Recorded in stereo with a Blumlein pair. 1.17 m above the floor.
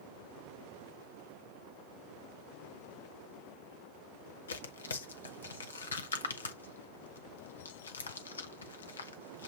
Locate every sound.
4.5 s tearing paper: 70° left, 0.7 m